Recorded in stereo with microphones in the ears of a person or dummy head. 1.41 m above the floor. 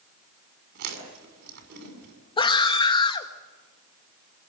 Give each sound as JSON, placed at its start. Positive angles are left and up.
{"t": 0.8, "sound": "chewing", "side_deg": -60, "distance_m": 6.0}
{"t": 2.4, "sound": "a scream", "side_deg": 25, "distance_m": 1.8}